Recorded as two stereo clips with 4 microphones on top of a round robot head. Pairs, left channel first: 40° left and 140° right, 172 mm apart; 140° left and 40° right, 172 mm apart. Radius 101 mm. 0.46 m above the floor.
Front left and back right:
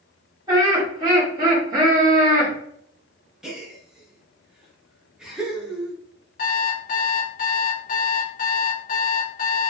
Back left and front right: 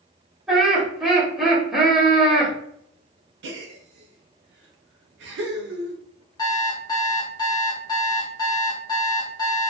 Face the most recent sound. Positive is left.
turn(degrees=75)